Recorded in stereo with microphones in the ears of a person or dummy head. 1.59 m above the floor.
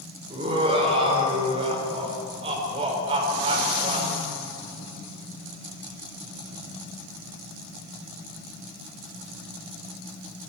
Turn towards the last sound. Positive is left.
turn(degrees=-25)  # may be behind; listen again after turning